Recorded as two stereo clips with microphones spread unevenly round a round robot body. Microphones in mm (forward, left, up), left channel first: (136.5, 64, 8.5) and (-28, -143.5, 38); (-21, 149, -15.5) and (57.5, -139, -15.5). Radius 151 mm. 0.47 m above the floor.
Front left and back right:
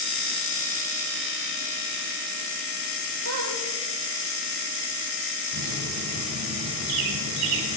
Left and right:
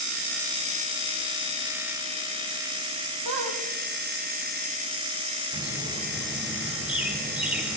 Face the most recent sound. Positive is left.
turn(degrees=-160)